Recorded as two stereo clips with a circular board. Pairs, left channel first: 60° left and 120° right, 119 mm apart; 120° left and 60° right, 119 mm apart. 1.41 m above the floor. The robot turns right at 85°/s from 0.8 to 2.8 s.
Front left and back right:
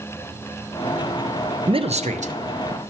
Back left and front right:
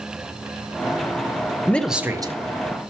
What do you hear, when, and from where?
1.7 s a man speaking: 165° right, 0.5 m; by 2.9 s 70° right, 0.5 m